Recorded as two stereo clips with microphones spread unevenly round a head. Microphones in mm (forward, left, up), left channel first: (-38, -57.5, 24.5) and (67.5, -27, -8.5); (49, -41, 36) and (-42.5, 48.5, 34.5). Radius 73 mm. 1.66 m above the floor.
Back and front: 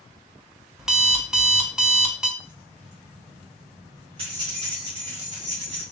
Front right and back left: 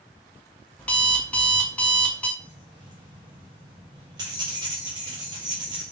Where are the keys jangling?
80° left, 1.6 m.